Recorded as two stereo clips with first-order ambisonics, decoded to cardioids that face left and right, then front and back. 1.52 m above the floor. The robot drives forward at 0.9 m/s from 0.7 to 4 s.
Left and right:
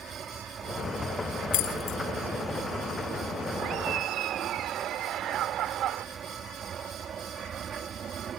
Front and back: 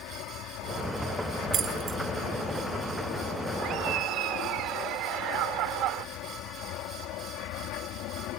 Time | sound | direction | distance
0.0 | an aircraft | 25° right | ?
1.5 | keys jangling | 115° left | ?
3.6 | laughter | 135° right | ?